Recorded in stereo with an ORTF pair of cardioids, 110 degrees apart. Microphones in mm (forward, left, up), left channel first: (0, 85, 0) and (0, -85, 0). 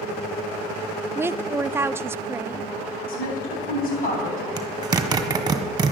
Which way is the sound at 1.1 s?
15° right.